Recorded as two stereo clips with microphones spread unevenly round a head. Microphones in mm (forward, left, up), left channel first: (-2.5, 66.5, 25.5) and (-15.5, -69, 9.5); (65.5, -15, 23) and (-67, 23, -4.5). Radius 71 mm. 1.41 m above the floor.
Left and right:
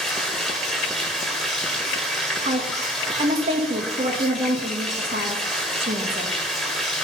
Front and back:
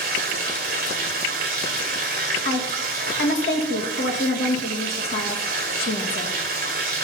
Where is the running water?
170° left, 1.4 m.